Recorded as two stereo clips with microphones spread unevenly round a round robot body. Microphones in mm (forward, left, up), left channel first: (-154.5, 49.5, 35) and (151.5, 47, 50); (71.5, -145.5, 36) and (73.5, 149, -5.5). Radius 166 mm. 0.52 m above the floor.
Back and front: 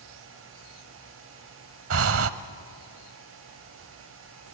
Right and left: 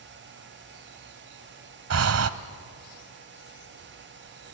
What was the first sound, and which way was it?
Breathing, 45° left.